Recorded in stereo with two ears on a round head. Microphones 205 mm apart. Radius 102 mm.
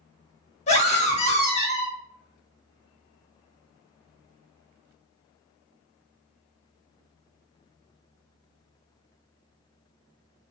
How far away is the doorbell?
No doorbell in this recording.